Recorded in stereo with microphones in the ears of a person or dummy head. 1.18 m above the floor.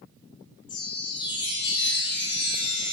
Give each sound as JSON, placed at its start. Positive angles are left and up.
{"t": 0.7, "sound": "a chime", "side_deg": 20, "distance_m": 0.6}